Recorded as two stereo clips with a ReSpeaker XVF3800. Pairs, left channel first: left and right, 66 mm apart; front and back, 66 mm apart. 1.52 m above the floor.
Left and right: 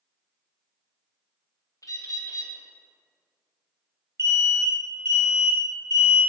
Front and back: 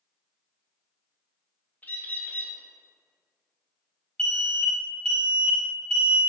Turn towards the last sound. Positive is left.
turn(degrees=-75)